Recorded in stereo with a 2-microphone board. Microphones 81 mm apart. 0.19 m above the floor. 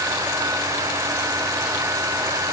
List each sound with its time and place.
Only background noise.